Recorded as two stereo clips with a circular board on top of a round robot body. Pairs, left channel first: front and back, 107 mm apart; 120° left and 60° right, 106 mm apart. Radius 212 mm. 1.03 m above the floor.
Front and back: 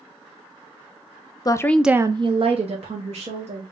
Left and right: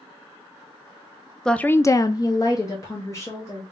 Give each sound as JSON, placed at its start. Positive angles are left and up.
{"t": 1.4, "sound": "a woman speaking", "azimuth_deg": 35, "distance_m": 0.6}